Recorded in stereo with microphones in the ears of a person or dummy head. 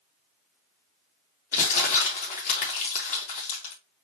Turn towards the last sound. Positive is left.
turn(degrees=45)  # may be behind; listen again after turning